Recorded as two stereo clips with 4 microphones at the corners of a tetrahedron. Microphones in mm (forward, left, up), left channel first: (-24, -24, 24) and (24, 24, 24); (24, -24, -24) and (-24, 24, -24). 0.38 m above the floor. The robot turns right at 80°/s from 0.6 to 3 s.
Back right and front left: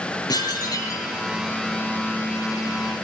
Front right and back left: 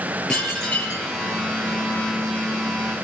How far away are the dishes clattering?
About 5.5 m.